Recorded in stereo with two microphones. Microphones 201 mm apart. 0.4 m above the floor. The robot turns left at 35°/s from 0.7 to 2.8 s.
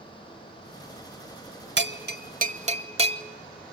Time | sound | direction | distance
1.8 | a bell | 65° right (ahead or behind) | 0.7 m